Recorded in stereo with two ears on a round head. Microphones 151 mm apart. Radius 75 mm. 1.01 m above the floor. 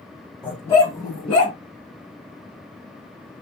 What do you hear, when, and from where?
0.4 s a dog barking: 5° left (ahead or behind), 1.6 m; by 1.6 s 40° left (ahead or behind), 1.7 m